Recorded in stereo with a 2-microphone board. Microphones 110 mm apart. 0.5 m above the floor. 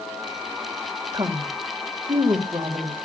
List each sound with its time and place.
1.1 s a woman speaking: 40° right (ahead or behind), 2.0 m